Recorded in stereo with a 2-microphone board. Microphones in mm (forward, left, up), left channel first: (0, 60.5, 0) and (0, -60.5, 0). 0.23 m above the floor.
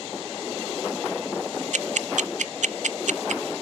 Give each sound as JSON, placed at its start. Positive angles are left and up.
{"t": 1.7, "sound": "ticking", "side_deg": -80, "distance_m": 0.6}